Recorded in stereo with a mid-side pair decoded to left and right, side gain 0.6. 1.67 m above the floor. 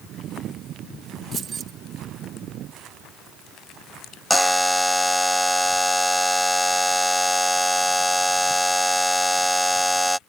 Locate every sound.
1.3 s keys jangling: 35° right
4.3 s a buzzer: 5° left